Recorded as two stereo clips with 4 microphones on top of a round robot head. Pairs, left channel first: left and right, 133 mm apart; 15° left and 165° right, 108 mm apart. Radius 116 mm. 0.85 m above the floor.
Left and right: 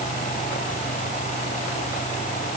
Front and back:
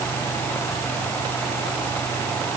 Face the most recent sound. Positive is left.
No sound to turn to.